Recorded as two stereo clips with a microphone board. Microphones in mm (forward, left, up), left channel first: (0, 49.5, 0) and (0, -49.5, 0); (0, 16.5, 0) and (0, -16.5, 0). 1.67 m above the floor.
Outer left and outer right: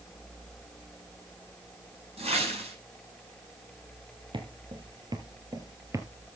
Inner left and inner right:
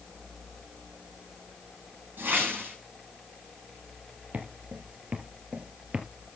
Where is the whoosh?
80° right, 6 m.